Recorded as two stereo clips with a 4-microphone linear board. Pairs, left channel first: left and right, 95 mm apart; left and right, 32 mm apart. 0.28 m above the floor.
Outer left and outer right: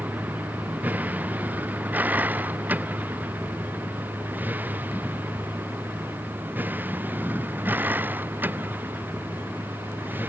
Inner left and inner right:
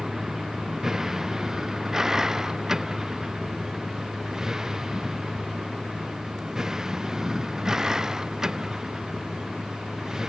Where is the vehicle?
15° right (ahead or behind); by 10.3 s 20° right (ahead or behind).